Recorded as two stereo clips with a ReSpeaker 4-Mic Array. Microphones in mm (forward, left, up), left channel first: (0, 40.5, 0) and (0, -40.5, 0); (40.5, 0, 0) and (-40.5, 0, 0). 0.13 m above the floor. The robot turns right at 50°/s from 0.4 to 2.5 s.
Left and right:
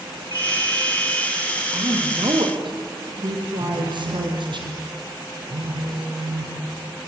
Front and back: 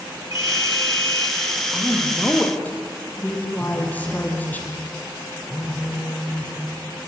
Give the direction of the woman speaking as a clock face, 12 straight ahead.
4 o'clock.